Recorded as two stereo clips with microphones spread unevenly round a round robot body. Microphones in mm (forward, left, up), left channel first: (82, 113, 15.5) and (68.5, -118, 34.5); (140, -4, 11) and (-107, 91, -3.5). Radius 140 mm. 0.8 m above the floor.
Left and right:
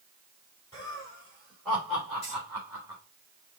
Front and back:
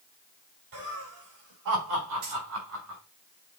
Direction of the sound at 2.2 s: 155° left.